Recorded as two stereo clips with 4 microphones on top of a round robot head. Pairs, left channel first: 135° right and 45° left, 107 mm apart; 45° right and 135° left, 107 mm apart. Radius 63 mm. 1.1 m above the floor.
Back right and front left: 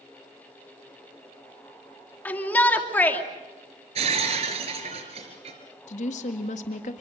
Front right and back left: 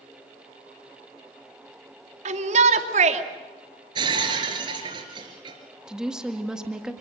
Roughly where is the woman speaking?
Behind right.